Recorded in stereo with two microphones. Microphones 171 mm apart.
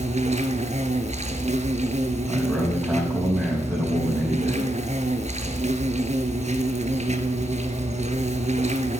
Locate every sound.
0.0 s an insect: 45° right (ahead or behind), 1.0 m
2.3 s a man speaking: 20° right (ahead or behind), 5.5 m